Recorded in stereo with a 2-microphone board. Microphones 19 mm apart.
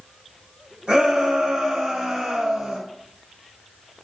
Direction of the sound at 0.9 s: 65° right (ahead or behind).